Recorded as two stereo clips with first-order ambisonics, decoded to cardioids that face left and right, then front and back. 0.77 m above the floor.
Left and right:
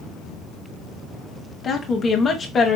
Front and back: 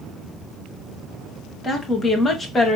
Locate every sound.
1.6 s a woman speaking: 50° left, 0.9 m